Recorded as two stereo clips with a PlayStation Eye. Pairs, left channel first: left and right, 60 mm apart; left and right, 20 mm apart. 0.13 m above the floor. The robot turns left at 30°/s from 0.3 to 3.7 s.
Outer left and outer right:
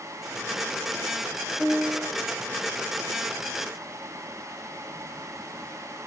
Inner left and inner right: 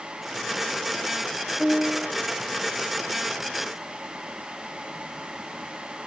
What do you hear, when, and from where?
1.6 s a piano: 45° right (ahead or behind), 2.5 m; by 2.1 s 60° right (ahead or behind), 2.5 m